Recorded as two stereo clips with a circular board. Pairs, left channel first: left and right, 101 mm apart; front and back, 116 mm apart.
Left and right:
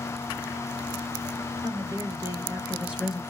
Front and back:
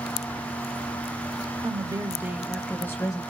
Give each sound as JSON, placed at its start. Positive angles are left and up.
{"t": 1.6, "sound": "a woman speaking", "azimuth_deg": -135, "distance_m": 1.5}